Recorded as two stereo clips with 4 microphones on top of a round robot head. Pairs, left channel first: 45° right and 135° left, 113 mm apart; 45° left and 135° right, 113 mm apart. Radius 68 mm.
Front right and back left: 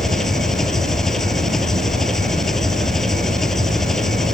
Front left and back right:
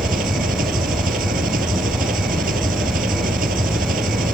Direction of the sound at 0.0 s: 130° right.